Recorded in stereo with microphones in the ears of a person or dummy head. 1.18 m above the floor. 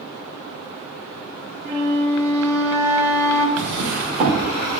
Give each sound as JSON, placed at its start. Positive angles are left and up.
{"t": 1.6, "sound": "a flute", "side_deg": -15, "distance_m": 1.3}
{"t": 3.6, "sound": "a drawer", "side_deg": -35, "distance_m": 1.2}